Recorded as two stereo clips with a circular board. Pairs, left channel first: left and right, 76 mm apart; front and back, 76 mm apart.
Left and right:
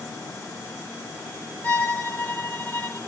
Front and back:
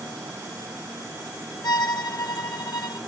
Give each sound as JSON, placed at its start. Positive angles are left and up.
{"t": 1.6, "sound": "a violin", "azimuth_deg": 25, "distance_m": 0.7}